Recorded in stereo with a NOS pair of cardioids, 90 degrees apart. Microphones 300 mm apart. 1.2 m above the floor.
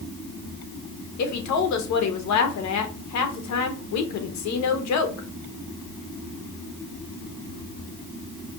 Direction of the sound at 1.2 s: 70° left.